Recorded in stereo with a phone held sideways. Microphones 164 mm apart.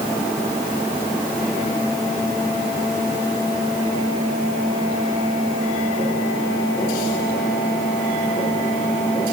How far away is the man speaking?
No man speaking in this recording.